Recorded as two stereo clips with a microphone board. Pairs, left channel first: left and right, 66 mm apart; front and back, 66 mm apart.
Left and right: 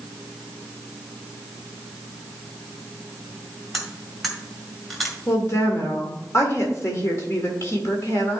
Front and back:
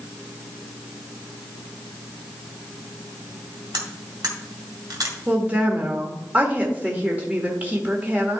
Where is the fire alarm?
I don't hear a fire alarm.